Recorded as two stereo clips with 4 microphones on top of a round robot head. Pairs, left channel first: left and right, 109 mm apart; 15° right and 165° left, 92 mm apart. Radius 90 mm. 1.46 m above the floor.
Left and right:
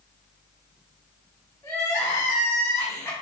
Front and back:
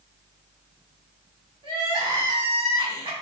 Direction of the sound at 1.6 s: 155° left.